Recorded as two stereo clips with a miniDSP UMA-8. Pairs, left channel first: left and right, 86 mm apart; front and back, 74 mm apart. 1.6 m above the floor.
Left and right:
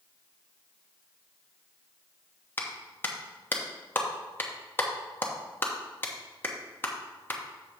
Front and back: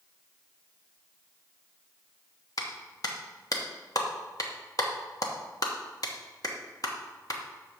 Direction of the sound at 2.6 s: 25° left.